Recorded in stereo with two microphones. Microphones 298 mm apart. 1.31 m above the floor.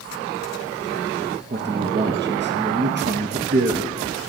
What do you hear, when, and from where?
1.5 s a man speaking: 35° right (ahead or behind), 0.5 m